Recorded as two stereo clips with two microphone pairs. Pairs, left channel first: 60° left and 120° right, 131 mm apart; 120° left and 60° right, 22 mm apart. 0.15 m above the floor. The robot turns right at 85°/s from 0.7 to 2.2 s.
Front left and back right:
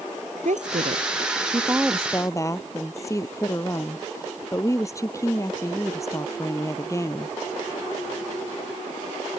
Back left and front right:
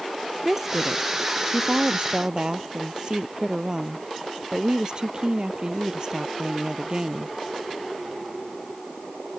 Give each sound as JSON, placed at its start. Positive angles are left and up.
{"t": 0.5, "sound": "a woman speaking", "azimuth_deg": -135}